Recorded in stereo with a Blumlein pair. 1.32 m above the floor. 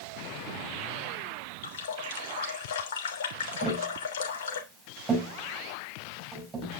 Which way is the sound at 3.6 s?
20° right.